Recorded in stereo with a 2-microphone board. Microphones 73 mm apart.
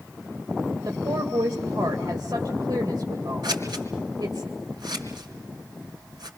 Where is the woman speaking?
75° right (ahead or behind), 2 m.